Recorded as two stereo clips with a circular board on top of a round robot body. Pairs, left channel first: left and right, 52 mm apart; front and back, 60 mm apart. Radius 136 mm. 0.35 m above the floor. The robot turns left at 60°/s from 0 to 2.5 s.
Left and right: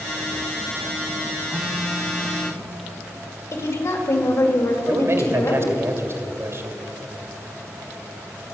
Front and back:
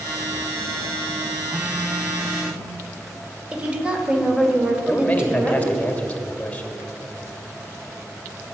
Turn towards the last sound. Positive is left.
turn(degrees=-70)